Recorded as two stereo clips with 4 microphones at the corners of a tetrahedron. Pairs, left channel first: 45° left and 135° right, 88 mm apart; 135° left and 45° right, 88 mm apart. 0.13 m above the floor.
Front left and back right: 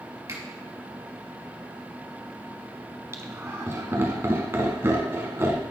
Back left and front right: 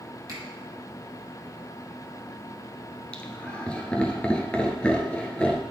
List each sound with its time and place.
0.3 s a finger snap: 90° right, 2.5 m
3.1 s laughter: 160° right, 1.2 m